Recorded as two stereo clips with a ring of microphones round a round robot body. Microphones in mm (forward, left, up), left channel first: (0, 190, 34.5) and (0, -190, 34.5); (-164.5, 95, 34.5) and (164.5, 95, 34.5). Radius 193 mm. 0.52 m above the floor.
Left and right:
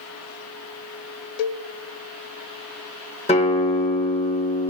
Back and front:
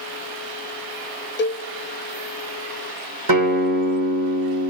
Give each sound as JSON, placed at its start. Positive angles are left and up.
{"t": 1.4, "sound": "a cowbell", "azimuth_deg": 120, "distance_m": 0.7}
{"t": 3.3, "sound": "a guitar", "azimuth_deg": 15, "distance_m": 1.7}